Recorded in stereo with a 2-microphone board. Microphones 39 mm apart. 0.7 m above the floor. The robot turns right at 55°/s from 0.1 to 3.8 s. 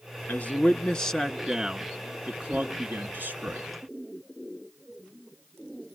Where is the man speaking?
115° left, 1.3 m; by 3.7 s 60° right, 1.3 m.